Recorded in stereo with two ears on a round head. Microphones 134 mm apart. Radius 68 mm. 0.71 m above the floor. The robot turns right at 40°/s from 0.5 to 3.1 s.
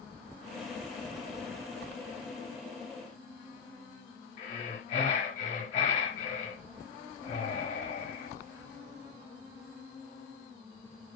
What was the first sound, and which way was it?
Breathing, 50° left (ahead or behind).